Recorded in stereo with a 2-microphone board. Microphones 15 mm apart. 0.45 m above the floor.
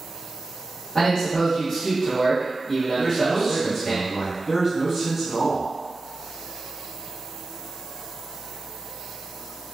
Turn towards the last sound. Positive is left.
turn(degrees=-15)  # may be behind; listen again after turning